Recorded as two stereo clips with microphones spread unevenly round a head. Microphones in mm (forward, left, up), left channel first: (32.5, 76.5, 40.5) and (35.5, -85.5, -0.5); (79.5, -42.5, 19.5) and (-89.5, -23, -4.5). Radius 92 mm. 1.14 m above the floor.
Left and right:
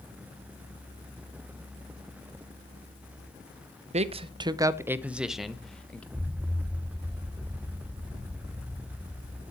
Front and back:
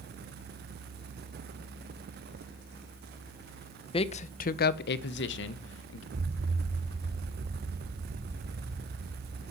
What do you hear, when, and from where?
3.9 s a man speaking: 65° right, 0.8 m; by 6.0 s 5° left, 1.3 m
6.1 s an explosion: 160° right, 0.7 m